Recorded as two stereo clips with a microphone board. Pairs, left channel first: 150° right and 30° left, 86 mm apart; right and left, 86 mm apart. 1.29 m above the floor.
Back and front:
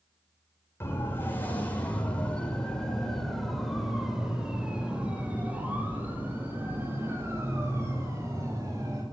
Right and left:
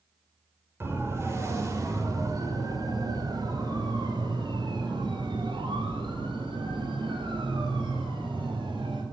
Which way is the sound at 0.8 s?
150° left.